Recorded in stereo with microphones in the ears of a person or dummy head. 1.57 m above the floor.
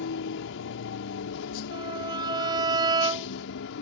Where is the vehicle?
70° left (ahead or behind).